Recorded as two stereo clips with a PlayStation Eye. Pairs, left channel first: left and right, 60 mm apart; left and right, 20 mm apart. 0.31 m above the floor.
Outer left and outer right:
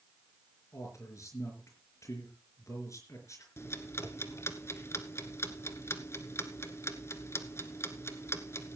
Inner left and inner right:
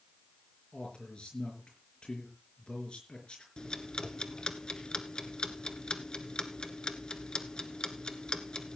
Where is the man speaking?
55° left (ahead or behind), 4.5 m.